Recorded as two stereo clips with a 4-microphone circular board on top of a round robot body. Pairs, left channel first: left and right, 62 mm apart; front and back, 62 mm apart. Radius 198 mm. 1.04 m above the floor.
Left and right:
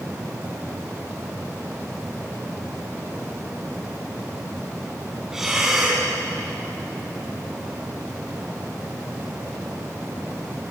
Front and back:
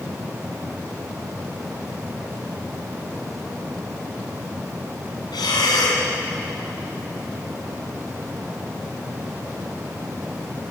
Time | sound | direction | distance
5.3 | breathing | 5° right | 3.5 m